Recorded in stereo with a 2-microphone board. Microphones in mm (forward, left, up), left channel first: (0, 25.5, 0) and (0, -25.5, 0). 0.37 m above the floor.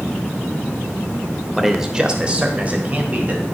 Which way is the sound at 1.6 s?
Centre (ahead or behind).